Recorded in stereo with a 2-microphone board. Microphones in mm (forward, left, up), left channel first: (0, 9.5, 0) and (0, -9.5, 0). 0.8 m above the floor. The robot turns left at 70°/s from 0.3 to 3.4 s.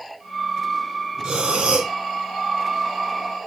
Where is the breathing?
45° right, 1.1 m; by 1.9 s 95° right, 1.1 m.